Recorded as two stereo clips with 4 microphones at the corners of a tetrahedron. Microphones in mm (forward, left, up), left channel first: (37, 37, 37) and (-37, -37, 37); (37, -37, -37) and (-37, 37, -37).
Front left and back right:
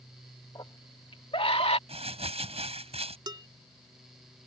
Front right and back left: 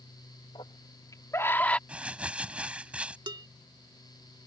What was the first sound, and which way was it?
A scream, 5° right.